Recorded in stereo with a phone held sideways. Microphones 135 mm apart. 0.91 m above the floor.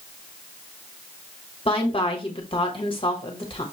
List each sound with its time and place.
1.6 s a woman speaking: 40° left (ahead or behind), 1.1 m